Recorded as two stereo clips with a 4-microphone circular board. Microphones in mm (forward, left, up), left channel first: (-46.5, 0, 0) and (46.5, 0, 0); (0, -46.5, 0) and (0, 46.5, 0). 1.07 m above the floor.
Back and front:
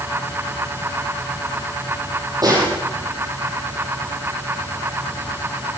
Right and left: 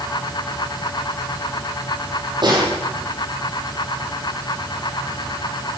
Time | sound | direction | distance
2.4 | a snare drum | 50° left | 8.5 m